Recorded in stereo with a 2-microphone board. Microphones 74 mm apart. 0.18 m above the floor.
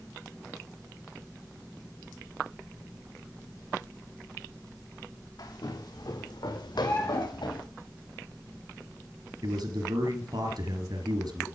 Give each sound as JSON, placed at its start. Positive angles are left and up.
{"t": 5.4, "sound": "footsteps", "side_deg": 65, "distance_m": 3.5}
{"t": 6.8, "sound": "a bird", "side_deg": 35, "distance_m": 5.0}
{"t": 9.4, "sound": "a man speaking", "side_deg": -65, "distance_m": 3.0}